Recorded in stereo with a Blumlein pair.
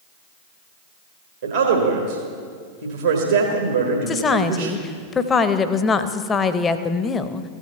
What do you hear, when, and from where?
1.4 s a man speaking: 70° right, 1.6 m
4.1 s a woman speaking: 20° left, 0.7 m